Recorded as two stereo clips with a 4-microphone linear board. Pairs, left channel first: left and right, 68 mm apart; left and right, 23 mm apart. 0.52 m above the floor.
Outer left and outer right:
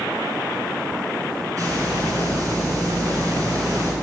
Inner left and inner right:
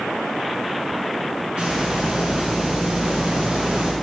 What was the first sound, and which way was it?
A hiss, 50° right (ahead or behind).